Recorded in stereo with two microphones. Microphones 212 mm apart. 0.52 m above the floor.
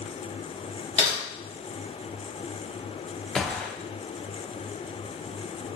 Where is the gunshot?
5° left (ahead or behind), 0.5 m.